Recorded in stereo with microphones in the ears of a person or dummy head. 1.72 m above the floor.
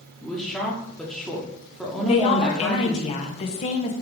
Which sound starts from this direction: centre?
A woman speaking, at 0.2 s.